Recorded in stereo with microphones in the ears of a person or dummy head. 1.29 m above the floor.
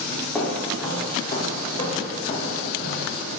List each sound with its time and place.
0.3 s footsteps: 5° left (ahead or behind), 3 m; by 3.2 s 40° left (ahead or behind), 3.5 m